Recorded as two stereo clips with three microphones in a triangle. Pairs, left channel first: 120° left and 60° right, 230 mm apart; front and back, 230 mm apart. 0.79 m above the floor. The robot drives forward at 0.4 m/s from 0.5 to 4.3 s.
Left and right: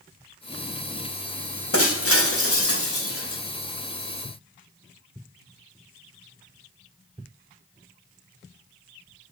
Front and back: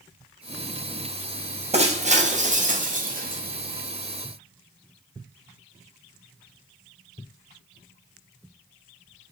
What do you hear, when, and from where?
1.7 s breaking glass: 120° left, 3 m; by 3.4 s 130° left, 3.5 m